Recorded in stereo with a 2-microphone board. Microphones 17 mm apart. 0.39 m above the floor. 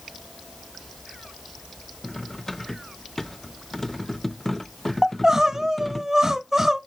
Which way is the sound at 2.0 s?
20° left (ahead or behind).